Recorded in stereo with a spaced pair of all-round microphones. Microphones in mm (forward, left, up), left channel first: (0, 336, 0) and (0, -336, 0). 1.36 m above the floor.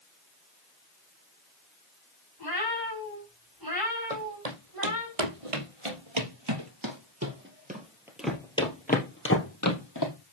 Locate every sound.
2.4 s a cat meowing: 30° right (ahead or behind), 4 m
4.1 s footsteps: 65° right (ahead or behind), 3 m; by 10.1 s 30° left (ahead or behind), 3 m